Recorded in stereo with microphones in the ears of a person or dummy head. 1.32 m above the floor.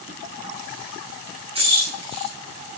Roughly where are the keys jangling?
Right.